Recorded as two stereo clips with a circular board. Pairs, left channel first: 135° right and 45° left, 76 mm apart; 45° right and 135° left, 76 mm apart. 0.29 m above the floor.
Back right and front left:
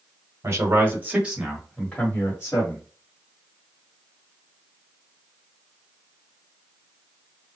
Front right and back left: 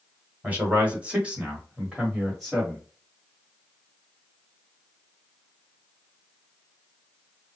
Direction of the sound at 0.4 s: 75° left.